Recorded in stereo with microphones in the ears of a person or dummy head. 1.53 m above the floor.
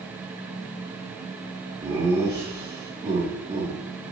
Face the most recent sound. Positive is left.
turn(degrees=-25)  # may be behind; listen again after turning